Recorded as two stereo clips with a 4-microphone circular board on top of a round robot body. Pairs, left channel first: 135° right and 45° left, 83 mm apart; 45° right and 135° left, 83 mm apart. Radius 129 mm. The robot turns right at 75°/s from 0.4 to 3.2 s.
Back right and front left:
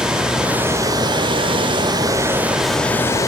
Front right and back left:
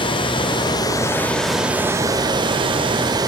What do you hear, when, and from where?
0.0 s running water: 40° right, 1.8 m; by 3.3 s 170° left, 1.8 m